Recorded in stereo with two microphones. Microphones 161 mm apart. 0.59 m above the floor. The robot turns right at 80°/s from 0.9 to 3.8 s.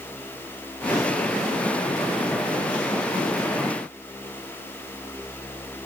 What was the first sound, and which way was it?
Only background noise.